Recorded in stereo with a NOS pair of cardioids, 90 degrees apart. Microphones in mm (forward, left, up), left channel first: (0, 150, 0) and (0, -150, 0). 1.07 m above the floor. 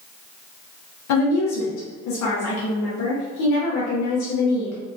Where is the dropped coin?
I don't hear a dropped coin.